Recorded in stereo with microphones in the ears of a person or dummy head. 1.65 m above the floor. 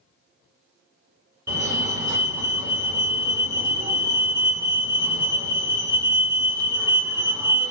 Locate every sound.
1.5 s a fire alarm: 15° right (ahead or behind), 1.5 m